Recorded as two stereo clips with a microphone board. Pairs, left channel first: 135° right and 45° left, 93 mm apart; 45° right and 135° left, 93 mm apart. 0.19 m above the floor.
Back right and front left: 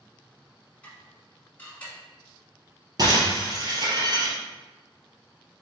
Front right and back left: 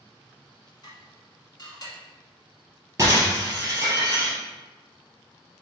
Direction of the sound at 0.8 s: 65° right.